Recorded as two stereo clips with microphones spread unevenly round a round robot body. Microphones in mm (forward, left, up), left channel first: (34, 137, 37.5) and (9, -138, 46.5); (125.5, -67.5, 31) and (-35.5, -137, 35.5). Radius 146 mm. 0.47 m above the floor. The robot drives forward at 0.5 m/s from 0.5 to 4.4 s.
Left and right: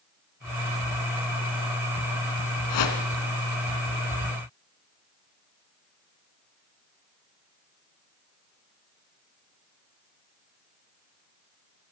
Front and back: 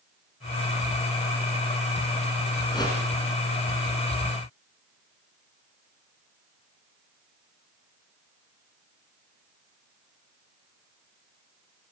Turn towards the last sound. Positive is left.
turn(degrees=115)